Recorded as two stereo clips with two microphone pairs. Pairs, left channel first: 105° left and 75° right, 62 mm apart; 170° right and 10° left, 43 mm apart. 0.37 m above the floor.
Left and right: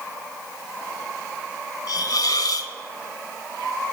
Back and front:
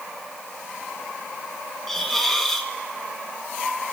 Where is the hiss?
105° left, 0.8 m.